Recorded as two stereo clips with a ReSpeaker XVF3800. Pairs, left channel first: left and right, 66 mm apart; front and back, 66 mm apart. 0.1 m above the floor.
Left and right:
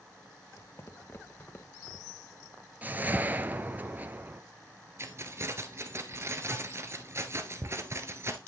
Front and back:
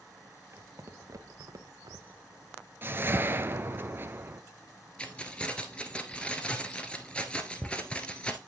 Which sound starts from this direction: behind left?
Footsteps, at 0.5 s.